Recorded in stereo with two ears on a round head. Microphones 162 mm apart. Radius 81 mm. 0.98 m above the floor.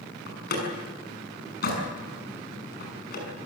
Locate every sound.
0.3 s a door slam: 55° left (ahead or behind), 6 m